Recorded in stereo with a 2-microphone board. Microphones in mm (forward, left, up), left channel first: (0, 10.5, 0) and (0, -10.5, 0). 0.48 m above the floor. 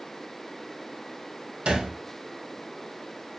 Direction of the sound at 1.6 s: 75° right (ahead or behind).